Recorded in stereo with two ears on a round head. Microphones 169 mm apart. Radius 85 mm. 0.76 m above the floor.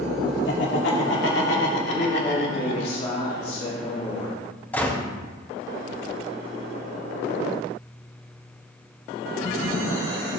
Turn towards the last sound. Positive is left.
turn(degrees=10)  # may be behind; listen again after turning